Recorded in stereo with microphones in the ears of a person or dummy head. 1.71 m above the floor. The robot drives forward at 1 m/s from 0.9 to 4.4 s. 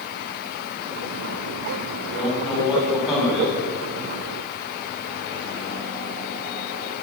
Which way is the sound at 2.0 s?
Centre (ahead or behind).